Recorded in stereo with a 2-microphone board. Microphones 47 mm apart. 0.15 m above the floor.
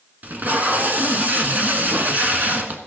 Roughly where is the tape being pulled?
Right.